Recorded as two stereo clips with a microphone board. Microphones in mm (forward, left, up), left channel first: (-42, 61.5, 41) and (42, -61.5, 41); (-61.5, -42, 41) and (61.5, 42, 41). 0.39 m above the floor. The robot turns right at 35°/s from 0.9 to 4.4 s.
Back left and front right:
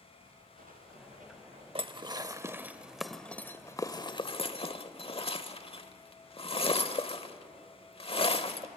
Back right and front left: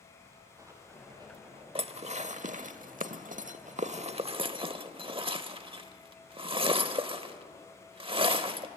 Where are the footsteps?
35° right, 6 m; by 1.6 s 15° right, 4 m.